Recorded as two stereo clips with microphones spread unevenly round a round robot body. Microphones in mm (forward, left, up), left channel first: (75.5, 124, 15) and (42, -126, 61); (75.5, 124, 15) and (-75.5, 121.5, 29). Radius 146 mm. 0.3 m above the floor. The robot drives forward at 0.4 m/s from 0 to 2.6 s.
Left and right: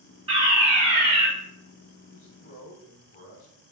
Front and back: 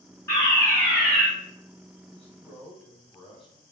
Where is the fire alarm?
30° right, 1.9 m; by 1.3 s 55° right, 1.8 m.